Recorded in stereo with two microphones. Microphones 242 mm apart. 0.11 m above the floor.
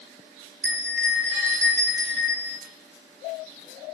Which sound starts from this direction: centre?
A bell, at 0.6 s.